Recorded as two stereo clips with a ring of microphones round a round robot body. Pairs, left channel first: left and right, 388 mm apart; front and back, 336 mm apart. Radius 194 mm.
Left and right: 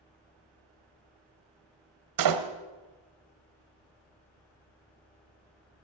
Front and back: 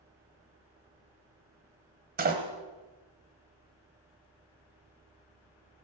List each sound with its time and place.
2.2 s a door slam: 115° right, 1.7 m